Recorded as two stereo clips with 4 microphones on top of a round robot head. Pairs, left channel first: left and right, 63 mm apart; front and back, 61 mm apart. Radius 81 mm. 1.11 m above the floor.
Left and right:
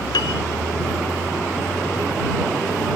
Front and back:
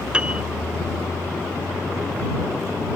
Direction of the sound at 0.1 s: 105° left.